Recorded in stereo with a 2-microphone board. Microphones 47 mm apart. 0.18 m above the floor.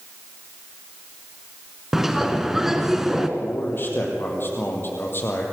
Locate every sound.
1.9 s a bird: 5° right (ahead or behind), 1.8 m
3.4 s a man speaking: 45° left (ahead or behind), 5.5 m